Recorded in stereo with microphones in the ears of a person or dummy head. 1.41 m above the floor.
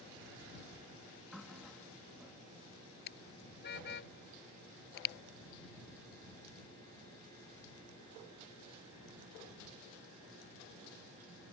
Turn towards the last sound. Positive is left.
turn(degrees=65)  # may be behind; listen again after turning